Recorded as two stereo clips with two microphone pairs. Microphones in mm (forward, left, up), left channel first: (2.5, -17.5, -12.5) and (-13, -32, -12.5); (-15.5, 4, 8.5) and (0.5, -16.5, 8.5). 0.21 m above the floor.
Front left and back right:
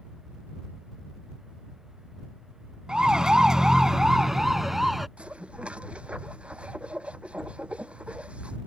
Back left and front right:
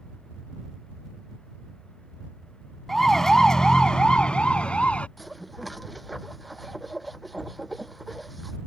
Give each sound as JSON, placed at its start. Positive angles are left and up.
{"t": 2.9, "sound": "a siren", "azimuth_deg": -160}
{"t": 5.2, "sound": "dishes clattering", "azimuth_deg": -145}